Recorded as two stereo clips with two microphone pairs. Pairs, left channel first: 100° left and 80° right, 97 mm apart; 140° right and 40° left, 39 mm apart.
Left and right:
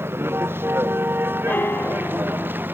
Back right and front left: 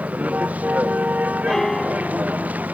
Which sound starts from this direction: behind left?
A piano, at 1.5 s.